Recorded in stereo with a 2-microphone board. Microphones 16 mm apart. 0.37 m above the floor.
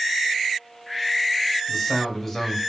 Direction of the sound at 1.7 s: 15° left (ahead or behind).